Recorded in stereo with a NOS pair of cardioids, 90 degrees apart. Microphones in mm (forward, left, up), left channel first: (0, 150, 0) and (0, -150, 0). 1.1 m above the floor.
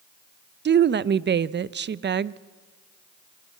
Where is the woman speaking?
35° right, 0.8 m.